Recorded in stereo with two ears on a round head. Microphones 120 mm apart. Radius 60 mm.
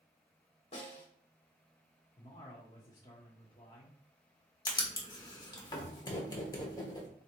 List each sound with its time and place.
0.7 s a snare drum: 45° left (ahead or behind), 2 m
2.2 s a man speaking: 30° left (ahead or behind), 1.2 m
4.7 s writing: 30° left (ahead or behind), 1.3 m